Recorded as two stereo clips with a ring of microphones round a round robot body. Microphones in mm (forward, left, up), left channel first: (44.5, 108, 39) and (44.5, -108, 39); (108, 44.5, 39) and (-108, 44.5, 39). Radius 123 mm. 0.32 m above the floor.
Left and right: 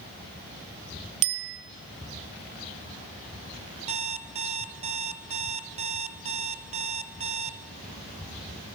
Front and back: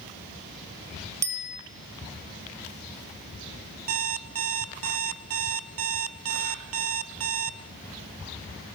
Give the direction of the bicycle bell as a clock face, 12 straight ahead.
3 o'clock.